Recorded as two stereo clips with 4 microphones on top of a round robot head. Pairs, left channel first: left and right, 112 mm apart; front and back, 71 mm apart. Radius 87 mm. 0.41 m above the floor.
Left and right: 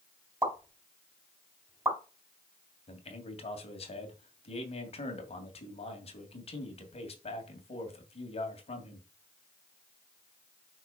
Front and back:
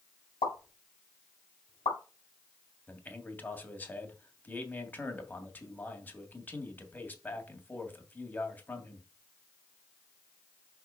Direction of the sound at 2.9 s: 65° left.